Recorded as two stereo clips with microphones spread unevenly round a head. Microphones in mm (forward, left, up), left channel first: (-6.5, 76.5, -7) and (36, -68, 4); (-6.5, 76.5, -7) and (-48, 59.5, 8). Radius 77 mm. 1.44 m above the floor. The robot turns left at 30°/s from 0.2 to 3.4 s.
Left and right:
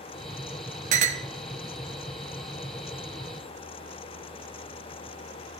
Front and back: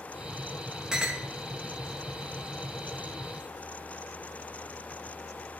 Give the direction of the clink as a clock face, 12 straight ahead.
3 o'clock.